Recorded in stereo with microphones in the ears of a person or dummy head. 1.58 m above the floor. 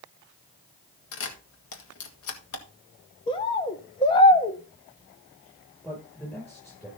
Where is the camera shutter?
75° left (ahead or behind), 1.9 m.